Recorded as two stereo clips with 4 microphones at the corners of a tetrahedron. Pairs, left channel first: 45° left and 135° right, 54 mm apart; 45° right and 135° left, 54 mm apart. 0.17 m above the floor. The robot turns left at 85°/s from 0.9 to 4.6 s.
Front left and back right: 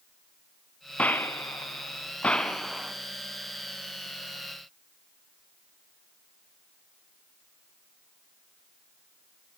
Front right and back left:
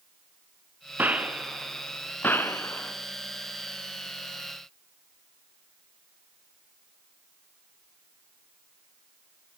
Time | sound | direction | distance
1.0 | a gunshot | 95° left | 1.9 m